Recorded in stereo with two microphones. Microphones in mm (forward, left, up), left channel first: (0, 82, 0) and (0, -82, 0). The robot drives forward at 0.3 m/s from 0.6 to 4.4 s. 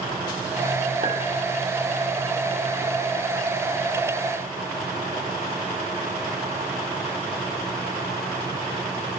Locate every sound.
1.0 s a clink: 50° right (ahead or behind), 1.7 m